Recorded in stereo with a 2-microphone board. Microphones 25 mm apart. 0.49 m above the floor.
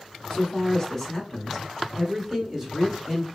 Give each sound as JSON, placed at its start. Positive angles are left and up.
{"t": 0.3, "sound": "a man speaking", "side_deg": 30, "distance_m": 1.0}